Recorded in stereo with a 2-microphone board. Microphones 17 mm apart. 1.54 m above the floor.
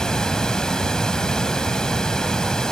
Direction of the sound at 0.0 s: 45° left (ahead or behind).